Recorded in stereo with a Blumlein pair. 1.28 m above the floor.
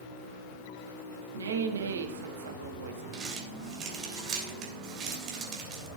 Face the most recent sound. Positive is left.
turn(degrees=-30)